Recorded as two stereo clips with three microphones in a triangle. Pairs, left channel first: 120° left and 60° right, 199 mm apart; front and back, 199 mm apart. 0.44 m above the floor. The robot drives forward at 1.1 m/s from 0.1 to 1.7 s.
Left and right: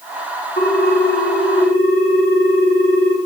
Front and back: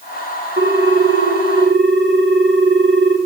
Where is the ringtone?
155° left, 1.8 m; by 3.2 s 165° left, 3 m.